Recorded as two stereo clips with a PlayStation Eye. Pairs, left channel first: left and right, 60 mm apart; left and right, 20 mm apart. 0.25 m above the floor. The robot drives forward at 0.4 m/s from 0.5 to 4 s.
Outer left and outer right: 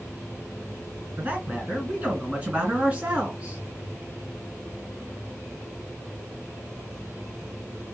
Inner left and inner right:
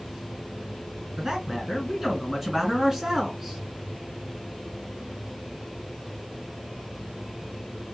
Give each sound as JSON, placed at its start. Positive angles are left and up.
{"t": 1.2, "sound": "a man speaking", "side_deg": -20, "distance_m": 2.0}